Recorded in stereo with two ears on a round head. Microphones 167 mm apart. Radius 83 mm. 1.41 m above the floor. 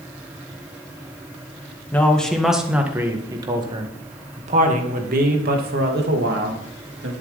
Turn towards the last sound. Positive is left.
turn(degrees=-60)  # may be behind; listen again after turning